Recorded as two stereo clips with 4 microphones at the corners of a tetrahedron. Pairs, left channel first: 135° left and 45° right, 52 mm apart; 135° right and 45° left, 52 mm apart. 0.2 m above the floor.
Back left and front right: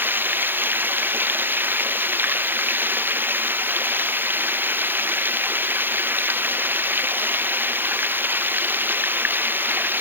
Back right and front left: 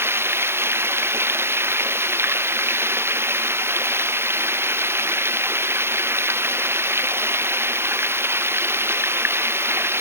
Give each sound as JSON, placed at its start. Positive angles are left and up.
{"t": 0.0, "sound": "running water", "azimuth_deg": 5}